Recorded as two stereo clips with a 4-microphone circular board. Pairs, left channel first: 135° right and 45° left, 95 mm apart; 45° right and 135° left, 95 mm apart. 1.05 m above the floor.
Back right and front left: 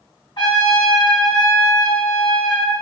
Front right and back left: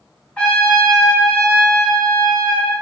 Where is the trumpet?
125° right, 1.4 m.